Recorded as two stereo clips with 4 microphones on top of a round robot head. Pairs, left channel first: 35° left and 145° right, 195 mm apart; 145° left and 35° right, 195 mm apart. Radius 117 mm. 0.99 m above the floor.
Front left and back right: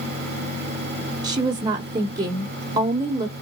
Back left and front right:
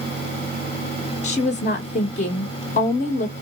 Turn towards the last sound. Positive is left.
turn(degrees=160)